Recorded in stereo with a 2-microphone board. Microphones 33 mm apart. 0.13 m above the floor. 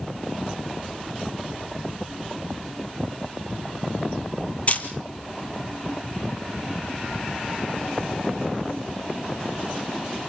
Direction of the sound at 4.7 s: 45° left (ahead or behind).